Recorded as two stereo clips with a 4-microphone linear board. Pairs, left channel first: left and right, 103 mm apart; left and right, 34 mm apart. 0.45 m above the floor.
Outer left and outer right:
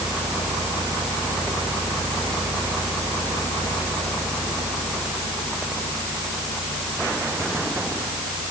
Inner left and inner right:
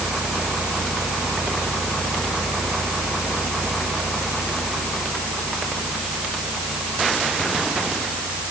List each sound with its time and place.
Only background noise.